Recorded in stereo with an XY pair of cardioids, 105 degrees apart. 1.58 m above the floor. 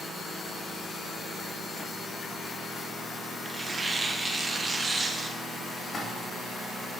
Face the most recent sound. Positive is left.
turn(degrees=45)